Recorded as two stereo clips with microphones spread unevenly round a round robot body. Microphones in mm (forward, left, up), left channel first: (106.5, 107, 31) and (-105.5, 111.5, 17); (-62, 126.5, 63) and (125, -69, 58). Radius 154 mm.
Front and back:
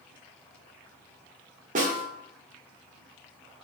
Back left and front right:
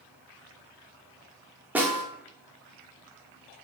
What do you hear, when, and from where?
1.8 s a snare drum: 130° right, 1.7 m